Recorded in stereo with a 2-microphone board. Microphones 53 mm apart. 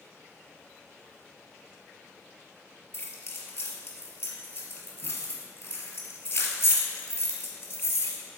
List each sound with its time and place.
2.9 s keys jangling: 45° left (ahead or behind), 1.7 m